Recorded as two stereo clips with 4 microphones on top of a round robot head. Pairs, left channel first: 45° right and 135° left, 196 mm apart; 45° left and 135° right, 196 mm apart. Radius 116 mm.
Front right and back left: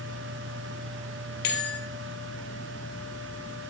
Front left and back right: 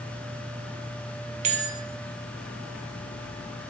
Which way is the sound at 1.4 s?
80° right.